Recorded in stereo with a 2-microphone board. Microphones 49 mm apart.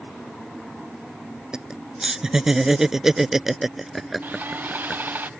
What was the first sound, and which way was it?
Laughter, 15° right (ahead or behind).